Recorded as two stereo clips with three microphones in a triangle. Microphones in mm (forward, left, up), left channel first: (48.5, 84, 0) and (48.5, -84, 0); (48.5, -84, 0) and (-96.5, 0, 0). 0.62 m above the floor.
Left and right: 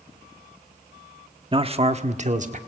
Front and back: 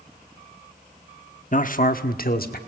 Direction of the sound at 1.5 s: 40° right.